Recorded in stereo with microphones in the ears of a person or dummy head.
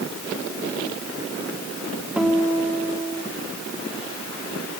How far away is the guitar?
About 4 m.